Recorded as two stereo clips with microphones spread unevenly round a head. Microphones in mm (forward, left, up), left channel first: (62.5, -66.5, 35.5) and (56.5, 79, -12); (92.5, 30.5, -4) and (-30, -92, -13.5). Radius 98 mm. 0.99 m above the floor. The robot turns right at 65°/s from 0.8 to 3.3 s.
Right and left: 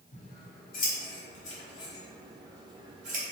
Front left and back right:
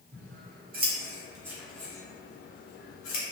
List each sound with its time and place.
0.1 s scissors: 100° right, 0.8 m; by 3.2 s 55° left, 0.8 m